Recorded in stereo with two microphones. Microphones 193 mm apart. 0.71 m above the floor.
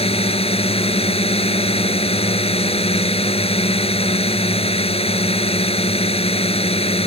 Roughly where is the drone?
Left.